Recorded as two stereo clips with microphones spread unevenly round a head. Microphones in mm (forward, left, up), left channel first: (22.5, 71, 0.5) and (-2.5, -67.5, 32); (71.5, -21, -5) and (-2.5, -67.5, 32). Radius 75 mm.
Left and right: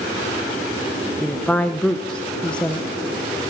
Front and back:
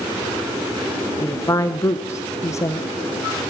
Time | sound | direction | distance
1.2 | a woman speaking | 5° left | 0.8 m